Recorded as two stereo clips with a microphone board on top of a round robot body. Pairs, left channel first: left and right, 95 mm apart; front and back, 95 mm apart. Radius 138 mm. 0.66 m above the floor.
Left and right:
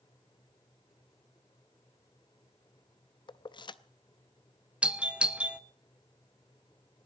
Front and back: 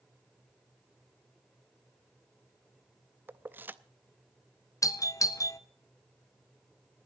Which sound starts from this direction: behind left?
Keys jangling, at 3.3 s.